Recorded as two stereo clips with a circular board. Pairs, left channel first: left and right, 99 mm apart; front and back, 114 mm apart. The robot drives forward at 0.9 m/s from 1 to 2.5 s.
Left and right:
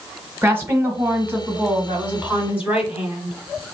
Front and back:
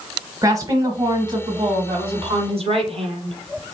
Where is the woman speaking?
145° right, 1.1 m; by 3.6 s 170° right, 2 m.